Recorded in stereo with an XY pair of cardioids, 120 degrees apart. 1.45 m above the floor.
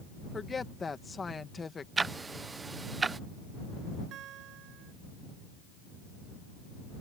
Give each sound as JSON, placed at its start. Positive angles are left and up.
{"t": 0.3, "sound": "a woman speaking", "azimuth_deg": 25}
{"t": 2.0, "sound": "ticking", "azimuth_deg": -25}
{"t": 4.1, "sound": "a guitar", "azimuth_deg": -70}